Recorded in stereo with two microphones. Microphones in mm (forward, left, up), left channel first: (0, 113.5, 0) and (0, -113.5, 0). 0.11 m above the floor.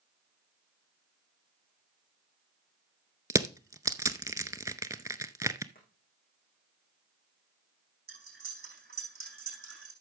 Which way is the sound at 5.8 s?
40° left (ahead or behind).